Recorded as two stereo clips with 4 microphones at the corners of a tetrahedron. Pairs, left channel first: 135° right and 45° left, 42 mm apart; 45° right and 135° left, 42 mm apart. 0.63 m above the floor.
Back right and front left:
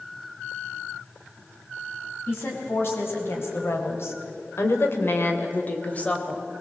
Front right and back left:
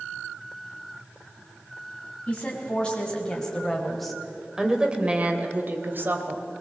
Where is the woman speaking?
105° right, 4 m; by 6.4 s 160° left, 3 m.